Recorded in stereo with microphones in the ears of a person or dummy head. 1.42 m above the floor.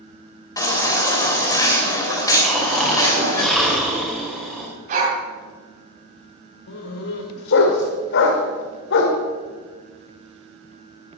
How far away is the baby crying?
About 3.5 m.